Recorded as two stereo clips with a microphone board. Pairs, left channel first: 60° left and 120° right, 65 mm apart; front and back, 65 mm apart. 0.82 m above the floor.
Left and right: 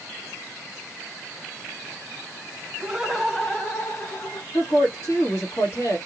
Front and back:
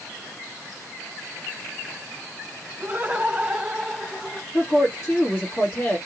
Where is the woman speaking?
30° left, 1.9 m.